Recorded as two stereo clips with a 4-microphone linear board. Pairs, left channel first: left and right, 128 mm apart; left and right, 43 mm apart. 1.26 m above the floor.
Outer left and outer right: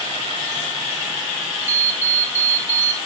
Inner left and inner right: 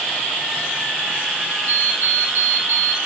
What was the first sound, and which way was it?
An alarm clock, 55° right (ahead or behind).